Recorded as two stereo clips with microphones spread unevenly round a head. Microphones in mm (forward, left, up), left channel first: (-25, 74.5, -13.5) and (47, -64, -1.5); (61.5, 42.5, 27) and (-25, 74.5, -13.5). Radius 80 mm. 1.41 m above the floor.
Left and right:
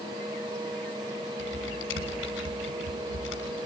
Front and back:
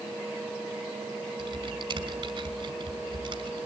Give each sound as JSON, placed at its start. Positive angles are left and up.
{"t": 1.4, "sound": "typing on a keyboard", "azimuth_deg": 130, "distance_m": 5.5}